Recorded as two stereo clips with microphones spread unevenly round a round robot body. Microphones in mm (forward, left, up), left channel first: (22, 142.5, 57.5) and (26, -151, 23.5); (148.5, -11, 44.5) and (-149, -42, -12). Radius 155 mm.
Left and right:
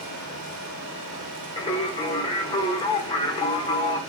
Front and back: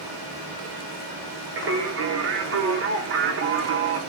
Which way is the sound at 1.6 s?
170° left.